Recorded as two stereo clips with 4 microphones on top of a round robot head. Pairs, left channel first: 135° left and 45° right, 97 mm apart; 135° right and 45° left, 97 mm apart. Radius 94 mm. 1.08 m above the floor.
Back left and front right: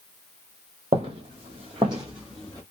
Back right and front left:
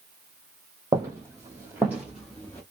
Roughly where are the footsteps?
Ahead.